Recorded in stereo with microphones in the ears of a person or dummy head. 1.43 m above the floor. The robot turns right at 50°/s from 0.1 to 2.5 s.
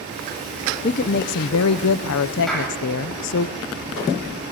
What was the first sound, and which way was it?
A woman speaking, 35° left.